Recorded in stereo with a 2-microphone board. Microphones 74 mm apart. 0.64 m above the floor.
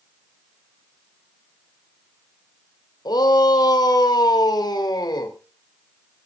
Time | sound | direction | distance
3.0 | a shout | 70° left (ahead or behind) | 2.5 m